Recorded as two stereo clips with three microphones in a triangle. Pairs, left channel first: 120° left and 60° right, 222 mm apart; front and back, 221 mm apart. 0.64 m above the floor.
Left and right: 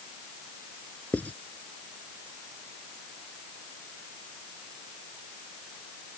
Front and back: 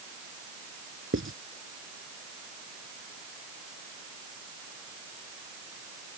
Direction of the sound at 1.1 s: 155° right.